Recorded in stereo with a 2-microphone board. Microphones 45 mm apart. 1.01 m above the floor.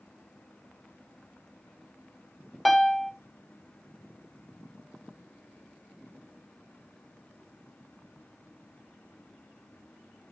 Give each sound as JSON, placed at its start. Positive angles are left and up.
{"t": 2.6, "sound": "a piano", "side_deg": 0, "distance_m": 0.7}